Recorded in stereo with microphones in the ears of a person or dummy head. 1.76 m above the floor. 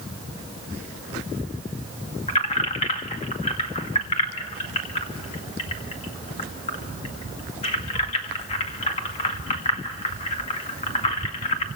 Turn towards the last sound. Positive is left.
turn(degrees=30)  # may be behind; listen again after turning